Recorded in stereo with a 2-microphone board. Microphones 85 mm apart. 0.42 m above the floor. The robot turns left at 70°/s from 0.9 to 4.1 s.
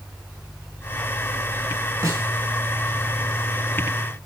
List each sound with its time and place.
2.0 s a snare drum: 45° right (ahead or behind), 3.5 m; by 2.3 s 30° right (ahead or behind), 3.5 m